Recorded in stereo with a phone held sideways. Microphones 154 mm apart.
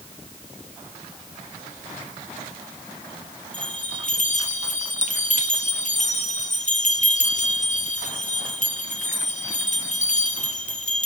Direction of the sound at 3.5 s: 50° left (ahead or behind).